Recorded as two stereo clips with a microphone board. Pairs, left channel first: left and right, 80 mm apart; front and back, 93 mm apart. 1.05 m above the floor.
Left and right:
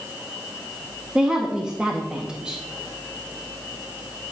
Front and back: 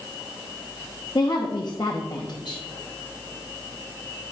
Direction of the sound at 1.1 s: 15° right.